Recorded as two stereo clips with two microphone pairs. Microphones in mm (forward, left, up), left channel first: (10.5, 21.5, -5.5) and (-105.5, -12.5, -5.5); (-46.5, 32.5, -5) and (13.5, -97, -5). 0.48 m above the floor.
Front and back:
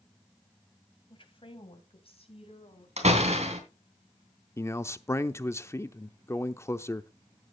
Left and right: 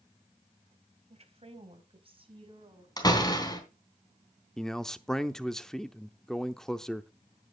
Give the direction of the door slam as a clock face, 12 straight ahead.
6 o'clock.